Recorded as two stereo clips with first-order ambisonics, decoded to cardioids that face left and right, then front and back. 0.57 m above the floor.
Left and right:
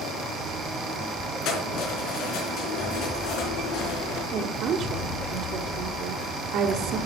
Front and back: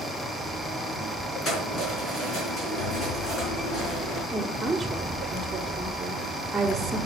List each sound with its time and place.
1.4 s keys jangling: 60° left, 4.5 m
4.3 s a woman speaking: 90° right, 1.2 m